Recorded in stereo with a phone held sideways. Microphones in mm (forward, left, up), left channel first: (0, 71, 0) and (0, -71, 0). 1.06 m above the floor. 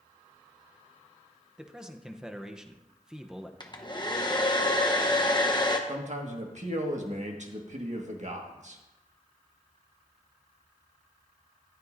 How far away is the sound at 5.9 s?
About 1.6 m.